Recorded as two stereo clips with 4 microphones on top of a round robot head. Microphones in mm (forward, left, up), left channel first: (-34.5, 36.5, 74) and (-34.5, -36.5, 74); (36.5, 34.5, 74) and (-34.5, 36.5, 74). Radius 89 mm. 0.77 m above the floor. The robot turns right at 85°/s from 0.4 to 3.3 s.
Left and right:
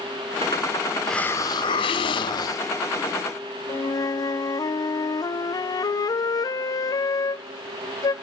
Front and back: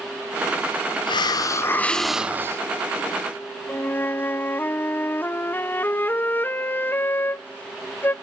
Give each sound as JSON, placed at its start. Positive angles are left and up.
{"t": 1.1, "sound": "a hiss", "azimuth_deg": 0, "distance_m": 0.6}
{"t": 3.7, "sound": "a flute", "azimuth_deg": 60, "distance_m": 0.5}